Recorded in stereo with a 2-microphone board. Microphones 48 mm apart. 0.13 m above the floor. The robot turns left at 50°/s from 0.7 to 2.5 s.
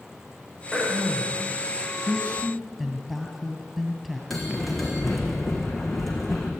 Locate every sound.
0.7 s throat clearing: straight ahead, 4.5 m; by 1.4 s 30° right, 4.5 m
2.1 s a woman speaking: 5° left (ahead or behind), 2.5 m; by 4.2 s 10° right (ahead or behind), 2.5 m
4.3 s a bell: centre (ahead or behind), 3.5 m